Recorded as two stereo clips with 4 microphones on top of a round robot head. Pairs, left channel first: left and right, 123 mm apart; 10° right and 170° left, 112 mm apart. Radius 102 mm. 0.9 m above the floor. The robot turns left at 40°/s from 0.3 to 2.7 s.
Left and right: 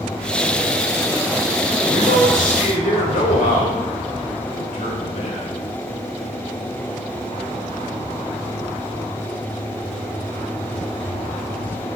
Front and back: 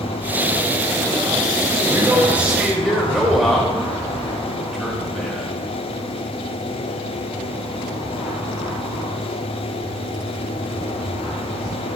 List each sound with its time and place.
1.9 s a man speaking: 115° left, 4 m; by 5.6 s 80° left, 4 m